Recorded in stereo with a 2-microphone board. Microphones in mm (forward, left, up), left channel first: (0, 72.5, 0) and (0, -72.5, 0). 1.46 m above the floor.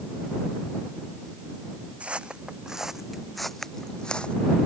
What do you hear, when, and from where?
2.0 s footsteps: 10° right (ahead or behind); by 4.3 s 10° left (ahead or behind)